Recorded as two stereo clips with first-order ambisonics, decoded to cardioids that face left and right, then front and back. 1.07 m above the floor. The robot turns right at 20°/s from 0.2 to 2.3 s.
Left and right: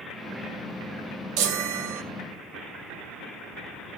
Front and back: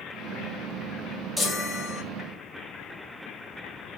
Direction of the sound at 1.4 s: 90° right.